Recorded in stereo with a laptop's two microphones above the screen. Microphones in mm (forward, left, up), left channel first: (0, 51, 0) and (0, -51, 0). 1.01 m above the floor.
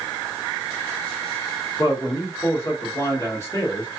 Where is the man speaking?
30° left (ahead or behind), 1.4 m.